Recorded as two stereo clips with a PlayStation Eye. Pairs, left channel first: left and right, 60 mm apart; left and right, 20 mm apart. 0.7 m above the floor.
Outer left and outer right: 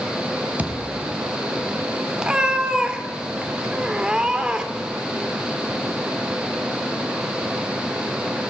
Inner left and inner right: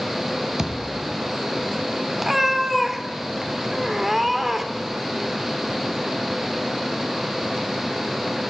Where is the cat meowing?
15° right (ahead or behind), 1.0 m.